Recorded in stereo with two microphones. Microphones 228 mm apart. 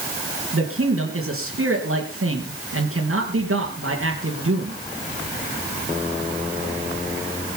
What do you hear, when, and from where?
0.5 s a man speaking: 70° right (ahead or behind), 3.5 m